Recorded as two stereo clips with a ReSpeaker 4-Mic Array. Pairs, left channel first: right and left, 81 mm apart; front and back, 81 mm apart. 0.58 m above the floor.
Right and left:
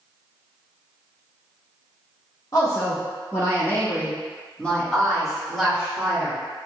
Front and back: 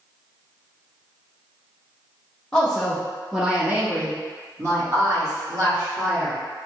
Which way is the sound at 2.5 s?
80° right.